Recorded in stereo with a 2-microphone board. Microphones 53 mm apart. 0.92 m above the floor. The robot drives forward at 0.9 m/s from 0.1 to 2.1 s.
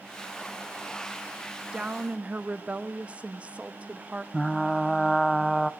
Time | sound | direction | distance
1.7 | a woman speaking | 20° right (ahead or behind) | 1.2 m
4.3 | frying | centre (ahead or behind) | 0.5 m